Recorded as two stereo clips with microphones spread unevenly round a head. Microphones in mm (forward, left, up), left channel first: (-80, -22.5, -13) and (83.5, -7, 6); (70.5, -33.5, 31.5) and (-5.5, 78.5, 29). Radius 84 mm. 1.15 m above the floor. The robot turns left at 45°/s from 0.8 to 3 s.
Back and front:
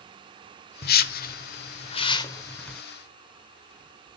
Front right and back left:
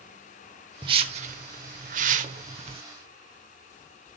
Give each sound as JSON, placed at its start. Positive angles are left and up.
{"t": 0.8, "sound": "a whoosh", "azimuth_deg": 180, "distance_m": 1.1}